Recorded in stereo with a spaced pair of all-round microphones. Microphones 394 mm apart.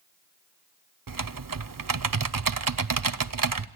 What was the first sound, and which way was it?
Typing on a keyboard, 55° right (ahead or behind).